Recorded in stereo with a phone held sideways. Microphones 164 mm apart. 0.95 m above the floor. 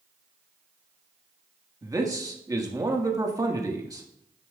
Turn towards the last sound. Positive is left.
turn(degrees=-20)  # may be behind; listen again after turning